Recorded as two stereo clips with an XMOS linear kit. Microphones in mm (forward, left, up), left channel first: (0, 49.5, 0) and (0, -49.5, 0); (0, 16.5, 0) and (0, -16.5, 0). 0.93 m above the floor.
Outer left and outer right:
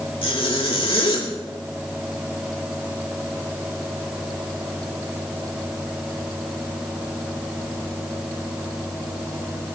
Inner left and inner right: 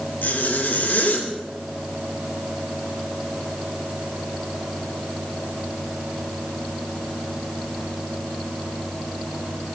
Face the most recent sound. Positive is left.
turn(degrees=75)  # may be behind; listen again after turning